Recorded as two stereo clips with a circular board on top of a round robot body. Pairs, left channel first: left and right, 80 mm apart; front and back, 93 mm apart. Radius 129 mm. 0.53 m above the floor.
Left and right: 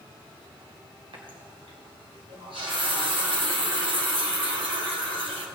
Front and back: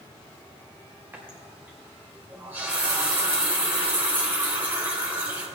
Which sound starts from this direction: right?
A running tap, at 1.1 s.